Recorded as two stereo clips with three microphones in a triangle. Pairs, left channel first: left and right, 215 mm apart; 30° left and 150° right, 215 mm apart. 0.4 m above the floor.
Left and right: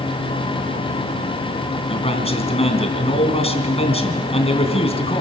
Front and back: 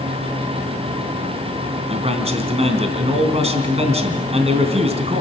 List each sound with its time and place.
1.9 s a man speaking: 150° left, 3 m